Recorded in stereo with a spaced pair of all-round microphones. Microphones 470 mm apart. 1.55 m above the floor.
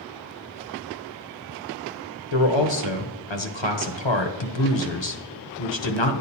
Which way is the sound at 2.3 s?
70° left (ahead or behind).